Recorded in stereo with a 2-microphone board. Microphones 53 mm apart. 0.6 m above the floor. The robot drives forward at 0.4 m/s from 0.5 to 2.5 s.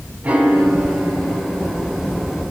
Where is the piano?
25° right (ahead or behind), 4.5 m; by 2.0 s 30° right (ahead or behind), 4 m.